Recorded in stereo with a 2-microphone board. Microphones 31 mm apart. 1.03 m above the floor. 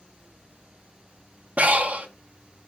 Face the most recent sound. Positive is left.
turn(degrees=-50)  # may be behind; listen again after turning